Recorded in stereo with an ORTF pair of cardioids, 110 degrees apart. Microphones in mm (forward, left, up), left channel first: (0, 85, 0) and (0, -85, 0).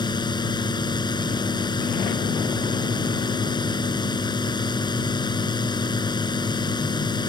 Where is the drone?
25° left.